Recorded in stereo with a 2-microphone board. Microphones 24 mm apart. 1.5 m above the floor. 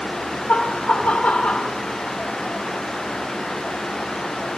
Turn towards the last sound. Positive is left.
turn(degrees=75)  # may be behind; listen again after turning